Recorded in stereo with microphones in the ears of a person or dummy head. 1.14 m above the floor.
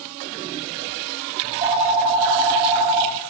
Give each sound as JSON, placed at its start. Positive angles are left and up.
{"t": 1.4, "sound": "a phone ringing", "side_deg": -25, "distance_m": 0.7}